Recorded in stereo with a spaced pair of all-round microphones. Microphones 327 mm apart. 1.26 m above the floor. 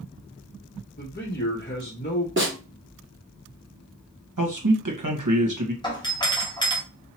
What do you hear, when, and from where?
1.0 s a man speaking: 30° left (ahead or behind), 1.0 m
2.4 s a snare drum: 35° right (ahead or behind), 1.4 m
4.4 s a man speaking: 65° right (ahead or behind), 1.3 m
5.8 s a doorbell: 15° left (ahead or behind), 1.2 m